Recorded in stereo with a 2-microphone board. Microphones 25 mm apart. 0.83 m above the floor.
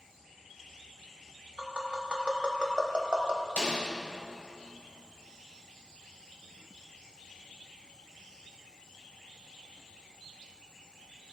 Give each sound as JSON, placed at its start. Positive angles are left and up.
{"t": 1.6, "sound": "tapping", "side_deg": -40, "distance_m": 0.9}
{"t": 3.6, "sound": "a snare drum", "side_deg": 75, "distance_m": 2.5}